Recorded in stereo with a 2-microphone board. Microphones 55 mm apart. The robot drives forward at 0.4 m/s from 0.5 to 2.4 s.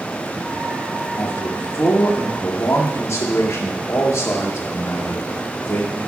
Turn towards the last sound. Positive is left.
turn(degrees=65)  # may be behind; listen again after turning